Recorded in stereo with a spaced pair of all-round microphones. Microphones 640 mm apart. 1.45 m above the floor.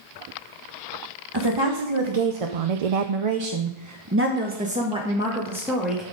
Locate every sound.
1.3 s a woman speaking: 40° right (ahead or behind), 1.4 m; by 6.0 s centre (ahead or behind), 2.5 m